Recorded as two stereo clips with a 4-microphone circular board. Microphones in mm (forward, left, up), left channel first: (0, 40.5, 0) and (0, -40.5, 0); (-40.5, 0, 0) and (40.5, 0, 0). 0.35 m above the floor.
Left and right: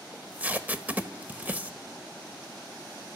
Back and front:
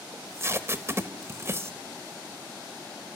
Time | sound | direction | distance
0.1 | tape being pulled | 30° right | 1.5 m